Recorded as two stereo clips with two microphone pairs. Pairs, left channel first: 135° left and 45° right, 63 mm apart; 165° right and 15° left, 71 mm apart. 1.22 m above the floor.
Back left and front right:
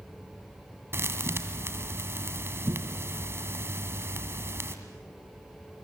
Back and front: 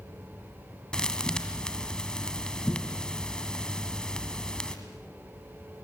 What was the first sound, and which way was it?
A thud, 85° right.